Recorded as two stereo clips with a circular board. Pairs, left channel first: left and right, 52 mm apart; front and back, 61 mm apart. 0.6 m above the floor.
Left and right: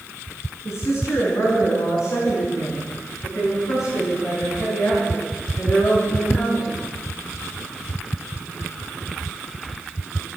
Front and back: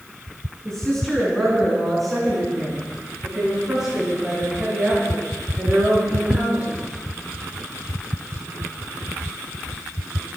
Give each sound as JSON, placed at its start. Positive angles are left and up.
{"t": 0.7, "sound": "a woman speaking", "azimuth_deg": 80, "distance_m": 7.0}